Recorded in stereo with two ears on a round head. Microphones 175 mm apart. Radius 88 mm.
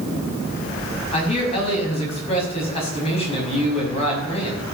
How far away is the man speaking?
About 6 m.